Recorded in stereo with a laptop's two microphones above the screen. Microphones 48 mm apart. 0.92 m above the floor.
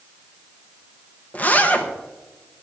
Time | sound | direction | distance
1.3 | a zipper | 35° left (ahead or behind) | 0.9 m